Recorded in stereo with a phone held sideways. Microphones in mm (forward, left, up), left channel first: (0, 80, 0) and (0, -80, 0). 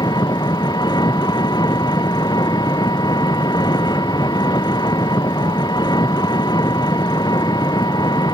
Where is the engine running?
25° left (ahead or behind).